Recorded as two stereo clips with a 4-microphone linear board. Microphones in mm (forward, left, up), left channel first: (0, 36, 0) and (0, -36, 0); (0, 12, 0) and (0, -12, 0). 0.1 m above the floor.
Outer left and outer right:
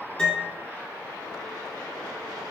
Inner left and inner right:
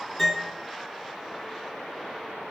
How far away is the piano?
About 0.7 m.